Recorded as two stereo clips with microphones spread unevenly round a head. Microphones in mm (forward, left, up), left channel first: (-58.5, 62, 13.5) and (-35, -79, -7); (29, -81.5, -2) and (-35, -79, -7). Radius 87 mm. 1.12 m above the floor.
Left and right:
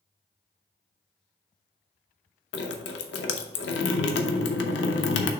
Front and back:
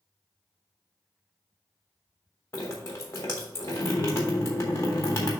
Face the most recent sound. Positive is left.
turn(degrees=75)